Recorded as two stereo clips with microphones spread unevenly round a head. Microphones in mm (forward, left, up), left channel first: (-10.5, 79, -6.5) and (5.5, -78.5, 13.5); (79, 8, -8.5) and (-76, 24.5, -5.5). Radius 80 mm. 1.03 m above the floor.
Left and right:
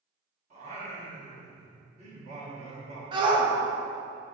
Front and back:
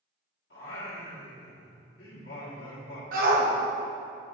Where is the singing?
35° right, 1.6 m.